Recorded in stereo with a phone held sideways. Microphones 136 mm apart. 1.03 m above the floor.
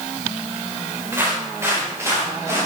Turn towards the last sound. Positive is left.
turn(degrees=-20)  # may be behind; listen again after turning